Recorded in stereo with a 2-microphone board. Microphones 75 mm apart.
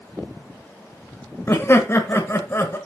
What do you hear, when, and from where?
1.5 s laughter: 35° left (ahead or behind), 1.1 m